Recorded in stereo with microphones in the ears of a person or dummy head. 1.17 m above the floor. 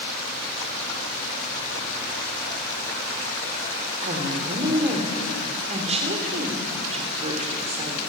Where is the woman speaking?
35° right (ahead or behind), 3 m.